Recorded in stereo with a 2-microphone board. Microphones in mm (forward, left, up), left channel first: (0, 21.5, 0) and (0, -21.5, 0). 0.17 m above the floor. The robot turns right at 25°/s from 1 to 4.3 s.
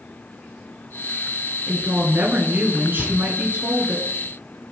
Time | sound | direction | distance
1.7 | a woman speaking | 125° right | 2.5 m
3.0 | a cupboard door | 15° left (ahead or behind) | 1.7 m